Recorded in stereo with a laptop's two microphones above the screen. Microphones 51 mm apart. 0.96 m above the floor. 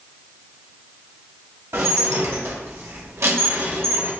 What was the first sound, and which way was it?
Dishes clattering, 65° right (ahead or behind).